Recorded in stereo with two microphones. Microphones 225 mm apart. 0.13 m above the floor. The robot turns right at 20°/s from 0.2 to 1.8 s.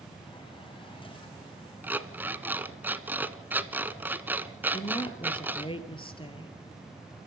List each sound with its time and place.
1.8 s an alarm clock: 10° right (ahead or behind), 0.9 m
4.7 s a woman speaking: 25° left (ahead or behind), 2.5 m